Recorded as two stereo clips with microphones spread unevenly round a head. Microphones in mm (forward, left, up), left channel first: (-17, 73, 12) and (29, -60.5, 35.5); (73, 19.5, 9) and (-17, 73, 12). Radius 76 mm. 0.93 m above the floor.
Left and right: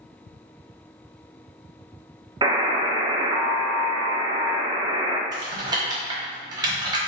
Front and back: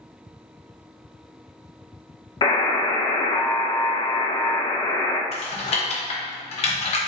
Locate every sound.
2.4 s a buzzer: 15° right, 0.5 m
5.3 s typing on a keyboard: 5° right, 0.9 m